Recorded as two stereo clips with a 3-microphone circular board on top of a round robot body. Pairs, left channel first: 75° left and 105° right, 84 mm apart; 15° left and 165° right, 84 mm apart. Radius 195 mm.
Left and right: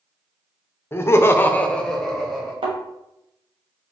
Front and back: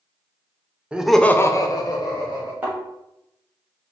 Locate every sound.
0.9 s laughter: 125° left, 0.8 m; by 2.5 s 15° right, 1.6 m
2.6 s a thud: 90° right, 0.8 m